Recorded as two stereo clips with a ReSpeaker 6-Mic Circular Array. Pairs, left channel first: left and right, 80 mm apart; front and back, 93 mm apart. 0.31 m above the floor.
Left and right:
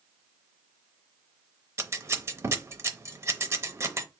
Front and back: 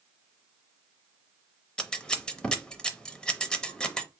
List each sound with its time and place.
1.8 s scissors: 75° right, 0.6 m